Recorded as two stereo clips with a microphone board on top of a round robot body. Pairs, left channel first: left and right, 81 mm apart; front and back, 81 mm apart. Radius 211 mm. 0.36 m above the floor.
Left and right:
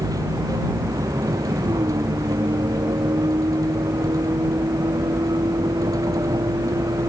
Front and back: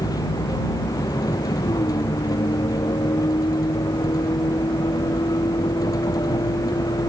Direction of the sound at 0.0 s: 45° right.